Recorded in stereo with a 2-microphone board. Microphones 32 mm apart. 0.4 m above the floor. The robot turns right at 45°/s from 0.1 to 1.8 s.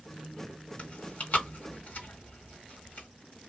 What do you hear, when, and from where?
0.8 s chewing: 40° left (ahead or behind), 1.6 m; by 3.1 s 65° left (ahead or behind), 1.6 m